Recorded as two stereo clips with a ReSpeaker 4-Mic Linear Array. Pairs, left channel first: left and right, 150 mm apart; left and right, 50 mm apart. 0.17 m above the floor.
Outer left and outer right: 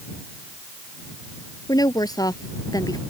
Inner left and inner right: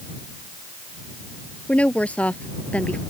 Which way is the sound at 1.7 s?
25° left (ahead or behind).